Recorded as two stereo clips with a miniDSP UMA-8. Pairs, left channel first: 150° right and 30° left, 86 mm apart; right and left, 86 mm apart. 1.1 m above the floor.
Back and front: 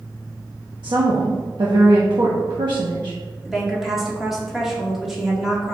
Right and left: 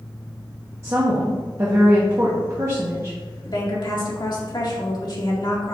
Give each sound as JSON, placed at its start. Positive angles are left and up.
{"t": 0.8, "sound": "a woman speaking", "azimuth_deg": 45, "distance_m": 1.1}
{"t": 3.5, "sound": "a woman speaking", "azimuth_deg": -55, "distance_m": 2.0}